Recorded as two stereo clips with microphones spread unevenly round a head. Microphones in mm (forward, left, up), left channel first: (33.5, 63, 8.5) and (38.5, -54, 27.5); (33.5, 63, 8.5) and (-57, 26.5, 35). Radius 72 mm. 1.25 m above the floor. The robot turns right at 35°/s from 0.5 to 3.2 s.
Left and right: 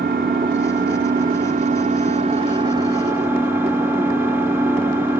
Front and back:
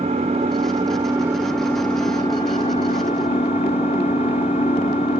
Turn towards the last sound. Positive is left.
turn(degrees=-15)